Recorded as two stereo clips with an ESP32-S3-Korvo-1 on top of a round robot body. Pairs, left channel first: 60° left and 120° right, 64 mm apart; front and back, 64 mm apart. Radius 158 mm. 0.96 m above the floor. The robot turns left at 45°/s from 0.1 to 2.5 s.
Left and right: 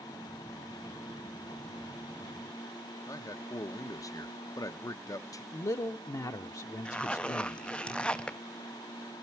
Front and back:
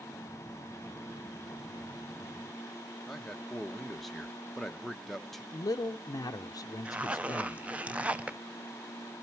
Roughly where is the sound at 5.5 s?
Ahead left.